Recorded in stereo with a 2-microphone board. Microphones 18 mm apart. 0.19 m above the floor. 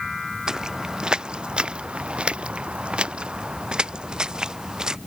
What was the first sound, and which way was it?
Footsteps, 35° right (ahead or behind).